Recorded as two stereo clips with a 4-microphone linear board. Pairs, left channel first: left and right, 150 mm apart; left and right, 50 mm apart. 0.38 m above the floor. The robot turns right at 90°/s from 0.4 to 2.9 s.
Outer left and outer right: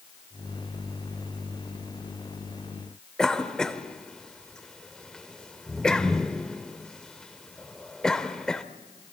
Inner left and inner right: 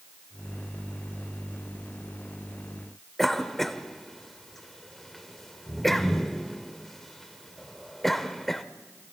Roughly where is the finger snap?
I don't hear a finger snap.